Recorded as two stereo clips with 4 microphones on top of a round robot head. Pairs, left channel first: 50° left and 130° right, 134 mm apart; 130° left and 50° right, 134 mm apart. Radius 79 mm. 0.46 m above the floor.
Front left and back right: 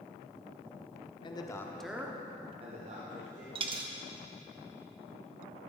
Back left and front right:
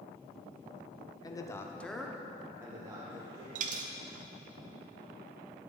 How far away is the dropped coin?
About 0.7 m.